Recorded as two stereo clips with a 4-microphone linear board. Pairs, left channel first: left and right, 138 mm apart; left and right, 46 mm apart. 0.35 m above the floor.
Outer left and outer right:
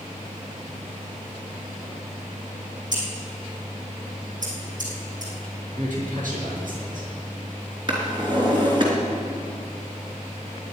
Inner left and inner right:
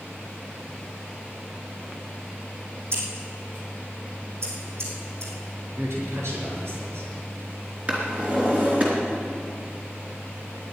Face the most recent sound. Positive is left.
turn(degrees=-35)  # may be behind; listen again after turning